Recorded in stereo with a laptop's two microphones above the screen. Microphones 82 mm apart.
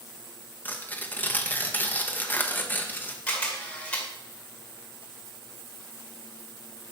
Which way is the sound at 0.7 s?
20° left (ahead or behind).